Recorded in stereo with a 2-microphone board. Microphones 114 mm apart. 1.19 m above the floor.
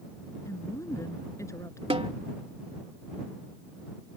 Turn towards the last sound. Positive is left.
turn(degrees=-55)  # may be behind; listen again after turning